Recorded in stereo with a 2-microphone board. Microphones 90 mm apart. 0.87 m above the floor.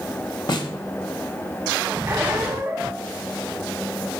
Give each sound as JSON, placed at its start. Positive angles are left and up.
{"t": 0.5, "sound": "a snare drum", "side_deg": 55, "distance_m": 1.0}
{"t": 2.1, "sound": "a squeak", "side_deg": -25, "distance_m": 1.4}